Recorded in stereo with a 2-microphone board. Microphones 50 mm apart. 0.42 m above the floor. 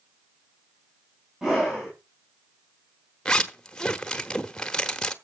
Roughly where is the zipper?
Centre.